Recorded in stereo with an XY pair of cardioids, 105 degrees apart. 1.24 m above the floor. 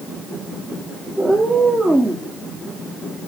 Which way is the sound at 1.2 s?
5° right.